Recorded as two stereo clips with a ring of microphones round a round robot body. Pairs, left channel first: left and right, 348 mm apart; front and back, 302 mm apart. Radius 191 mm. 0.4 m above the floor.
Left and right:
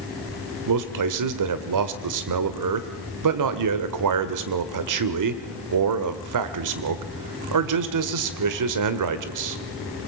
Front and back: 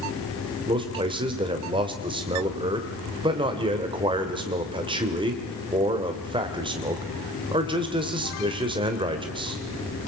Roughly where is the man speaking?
Right.